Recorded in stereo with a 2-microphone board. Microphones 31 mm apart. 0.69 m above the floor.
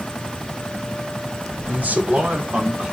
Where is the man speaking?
55° right (ahead or behind), 2 m; by 2.9 s 20° right (ahead or behind), 1.7 m.